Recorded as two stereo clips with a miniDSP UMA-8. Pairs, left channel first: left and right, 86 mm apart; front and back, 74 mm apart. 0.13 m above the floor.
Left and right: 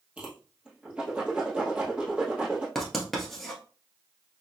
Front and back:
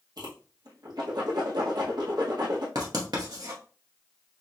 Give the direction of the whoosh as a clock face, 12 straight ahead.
6 o'clock.